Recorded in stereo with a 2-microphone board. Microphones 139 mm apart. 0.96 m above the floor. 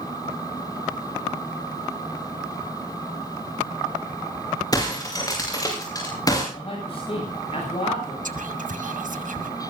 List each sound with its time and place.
4.7 s breaking glass: 25° left (ahead or behind), 7.5 m
6.5 s a man speaking: 45° left (ahead or behind), 8 m
8.2 s whispering: 70° right (ahead or behind), 1.8 m